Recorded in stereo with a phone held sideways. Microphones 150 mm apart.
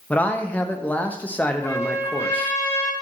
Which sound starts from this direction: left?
A trumpet, at 1.6 s.